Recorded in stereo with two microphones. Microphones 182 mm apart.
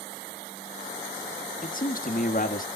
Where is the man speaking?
50° left (ahead or behind), 1.4 m.